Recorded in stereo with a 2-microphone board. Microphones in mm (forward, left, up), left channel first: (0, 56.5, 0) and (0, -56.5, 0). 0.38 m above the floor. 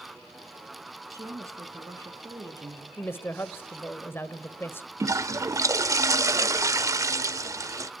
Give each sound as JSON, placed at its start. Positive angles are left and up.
{"t": 1.1, "sound": "a woman speaking", "side_deg": -25, "distance_m": 4.5}
{"t": 3.0, "sound": "a woman speaking", "side_deg": 20, "distance_m": 1.2}
{"t": 5.0, "sound": "a toilet flushing", "side_deg": -30, "distance_m": 0.7}